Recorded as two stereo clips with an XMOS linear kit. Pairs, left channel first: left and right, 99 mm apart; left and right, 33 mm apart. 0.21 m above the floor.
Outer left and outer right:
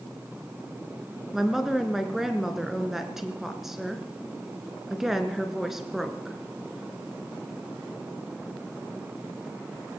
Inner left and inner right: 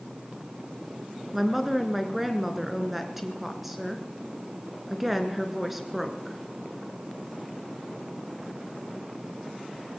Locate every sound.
1.3 s a woman speaking: 5° right (ahead or behind), 2.5 m